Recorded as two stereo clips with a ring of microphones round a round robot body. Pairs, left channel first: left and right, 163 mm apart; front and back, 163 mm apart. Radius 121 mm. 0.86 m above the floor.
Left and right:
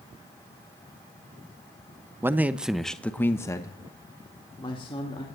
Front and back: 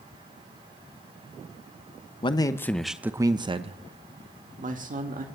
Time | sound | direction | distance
2.2 | a man speaking | 25° right | 0.9 m